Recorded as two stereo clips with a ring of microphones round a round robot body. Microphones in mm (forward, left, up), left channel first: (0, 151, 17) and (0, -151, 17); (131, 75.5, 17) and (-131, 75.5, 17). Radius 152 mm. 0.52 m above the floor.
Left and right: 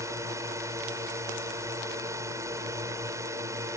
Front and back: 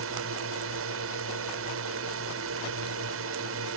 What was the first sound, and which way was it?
A drone, 170° right.